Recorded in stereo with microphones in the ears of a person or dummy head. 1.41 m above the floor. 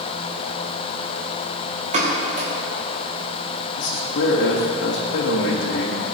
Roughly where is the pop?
Right.